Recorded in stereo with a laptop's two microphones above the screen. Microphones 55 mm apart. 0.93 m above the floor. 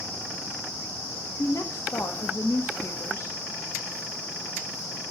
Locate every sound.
1.4 s a woman speaking: 65° left (ahead or behind), 1.2 m